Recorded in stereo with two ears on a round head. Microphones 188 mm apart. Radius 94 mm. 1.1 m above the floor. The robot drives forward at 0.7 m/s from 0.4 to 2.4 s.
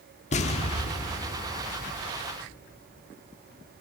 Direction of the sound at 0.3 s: 35° left (ahead or behind).